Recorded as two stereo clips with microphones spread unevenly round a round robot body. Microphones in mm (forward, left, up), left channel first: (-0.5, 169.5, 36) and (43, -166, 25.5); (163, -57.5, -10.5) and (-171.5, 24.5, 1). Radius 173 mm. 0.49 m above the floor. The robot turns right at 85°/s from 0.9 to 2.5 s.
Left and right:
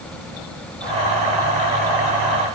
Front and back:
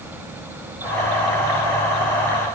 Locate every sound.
Only background noise.